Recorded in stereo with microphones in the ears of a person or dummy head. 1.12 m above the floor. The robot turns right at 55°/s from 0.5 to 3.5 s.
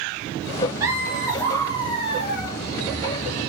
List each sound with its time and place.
0.8 s laughter: 20° right, 0.5 m; by 2.5 s 75° left, 0.5 m